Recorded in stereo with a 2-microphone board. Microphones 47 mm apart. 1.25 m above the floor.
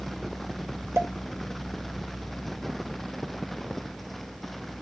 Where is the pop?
75° right (ahead or behind), 2 m.